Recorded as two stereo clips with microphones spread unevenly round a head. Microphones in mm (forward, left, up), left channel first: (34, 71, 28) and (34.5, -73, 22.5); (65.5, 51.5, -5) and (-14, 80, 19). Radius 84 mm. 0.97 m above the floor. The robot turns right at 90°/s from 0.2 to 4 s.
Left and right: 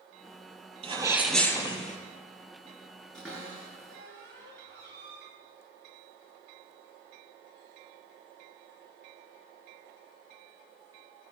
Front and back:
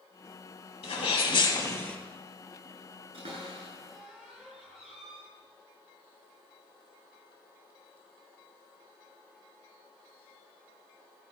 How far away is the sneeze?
About 6 m.